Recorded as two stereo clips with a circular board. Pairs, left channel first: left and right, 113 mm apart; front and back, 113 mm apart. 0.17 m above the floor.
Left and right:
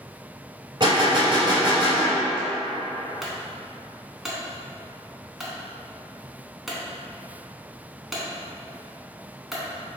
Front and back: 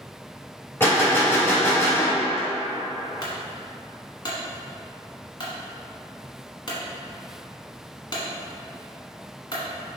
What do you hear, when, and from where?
0.8 s a gunshot: 65° right, 1.4 m
3.2 s a clunk: straight ahead, 1.0 m